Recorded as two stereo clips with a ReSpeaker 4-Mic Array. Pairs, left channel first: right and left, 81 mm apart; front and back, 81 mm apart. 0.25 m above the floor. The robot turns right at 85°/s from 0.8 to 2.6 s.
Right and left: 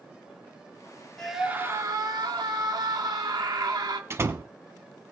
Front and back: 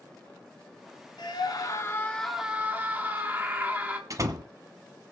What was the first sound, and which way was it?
A scream, 10° right.